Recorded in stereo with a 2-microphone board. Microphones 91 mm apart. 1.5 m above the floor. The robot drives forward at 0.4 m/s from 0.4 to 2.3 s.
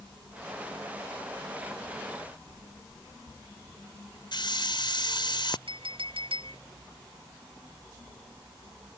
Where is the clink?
80° right.